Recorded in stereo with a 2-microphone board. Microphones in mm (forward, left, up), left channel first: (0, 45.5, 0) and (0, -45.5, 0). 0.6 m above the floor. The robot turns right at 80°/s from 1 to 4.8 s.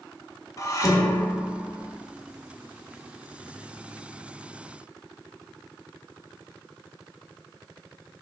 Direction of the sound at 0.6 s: 140° left.